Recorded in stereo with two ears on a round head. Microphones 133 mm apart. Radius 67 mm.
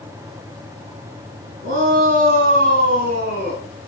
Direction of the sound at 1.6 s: 65° right (ahead or behind).